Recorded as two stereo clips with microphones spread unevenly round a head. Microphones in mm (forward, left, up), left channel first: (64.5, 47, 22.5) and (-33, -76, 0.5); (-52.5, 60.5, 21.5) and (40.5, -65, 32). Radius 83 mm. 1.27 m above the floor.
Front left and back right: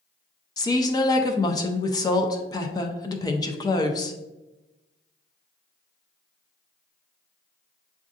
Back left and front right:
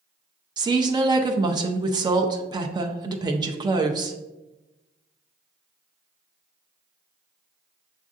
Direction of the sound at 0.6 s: 10° right.